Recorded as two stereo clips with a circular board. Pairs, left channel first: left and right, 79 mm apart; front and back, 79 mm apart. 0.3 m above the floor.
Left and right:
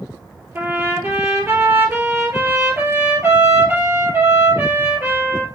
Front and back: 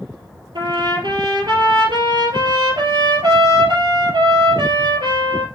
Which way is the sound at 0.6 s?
155° right.